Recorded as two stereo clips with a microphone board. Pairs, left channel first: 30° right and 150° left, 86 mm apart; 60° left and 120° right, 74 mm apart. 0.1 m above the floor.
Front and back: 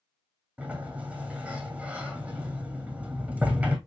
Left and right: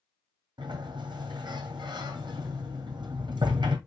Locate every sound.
0.6 s a sliding door: 135° right, 1.6 m